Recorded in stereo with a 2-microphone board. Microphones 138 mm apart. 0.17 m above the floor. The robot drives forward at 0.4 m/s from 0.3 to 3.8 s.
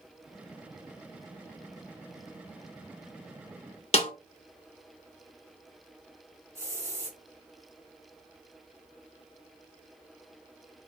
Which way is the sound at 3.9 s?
50° left (ahead or behind).